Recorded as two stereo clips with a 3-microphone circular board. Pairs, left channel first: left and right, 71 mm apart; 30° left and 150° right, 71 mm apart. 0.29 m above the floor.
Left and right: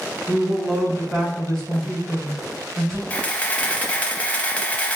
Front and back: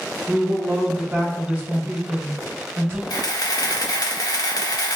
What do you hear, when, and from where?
0.3 s a woman speaking: 170° left, 1.8 m
3.1 s a camera shutter: 25° left, 0.6 m